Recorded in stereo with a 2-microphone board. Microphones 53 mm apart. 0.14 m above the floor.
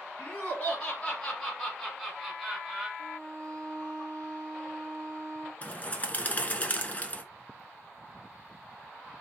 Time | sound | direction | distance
0.2 | laughter | 30° left (ahead or behind) | 1.7 m
3.0 | a violin | 30° left (ahead or behind) | 1.5 m
5.6 | a bird | 30° left (ahead or behind) | 0.7 m